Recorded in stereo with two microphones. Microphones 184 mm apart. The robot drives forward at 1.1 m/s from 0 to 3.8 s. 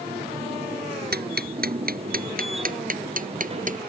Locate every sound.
1.1 s ticking: 60° right (ahead or behind); by 3.8 s 45° right (ahead or behind)